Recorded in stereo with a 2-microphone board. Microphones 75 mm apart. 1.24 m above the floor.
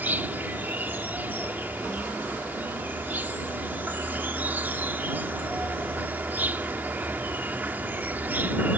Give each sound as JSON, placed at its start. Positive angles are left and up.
{"t": 0.0, "sound": "an insect", "side_deg": -25}